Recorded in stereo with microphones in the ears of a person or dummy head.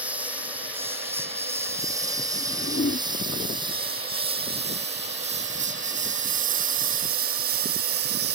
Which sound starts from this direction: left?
A whoosh, at 2.4 s.